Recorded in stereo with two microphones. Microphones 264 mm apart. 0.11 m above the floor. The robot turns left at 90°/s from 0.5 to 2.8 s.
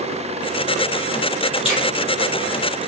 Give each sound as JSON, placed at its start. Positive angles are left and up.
{"t": 1.6, "sound": "a finger snap", "side_deg": 20, "distance_m": 2.5}